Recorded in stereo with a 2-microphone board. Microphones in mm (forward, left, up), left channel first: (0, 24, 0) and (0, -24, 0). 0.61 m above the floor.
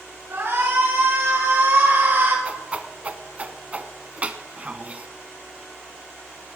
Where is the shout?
60° right (ahead or behind), 5 m; by 2.4 s 45° right (ahead or behind), 4 m.